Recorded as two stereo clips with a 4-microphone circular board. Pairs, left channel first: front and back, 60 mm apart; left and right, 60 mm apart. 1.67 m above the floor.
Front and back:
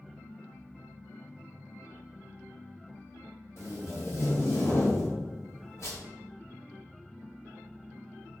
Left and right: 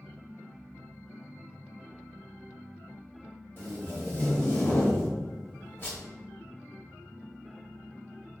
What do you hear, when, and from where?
3.6 s tape being pulled: 40° left, 0.7 m